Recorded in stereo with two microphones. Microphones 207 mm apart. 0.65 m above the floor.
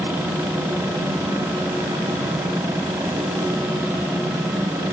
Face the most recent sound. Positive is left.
No sound to turn to.